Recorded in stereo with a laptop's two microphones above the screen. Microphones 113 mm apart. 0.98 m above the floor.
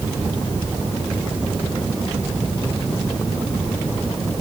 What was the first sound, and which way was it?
Only background noise.